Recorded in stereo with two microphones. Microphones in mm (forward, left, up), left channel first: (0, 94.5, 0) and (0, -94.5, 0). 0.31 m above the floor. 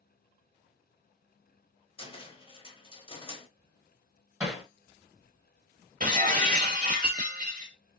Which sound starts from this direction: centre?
Hammering, at 4.4 s.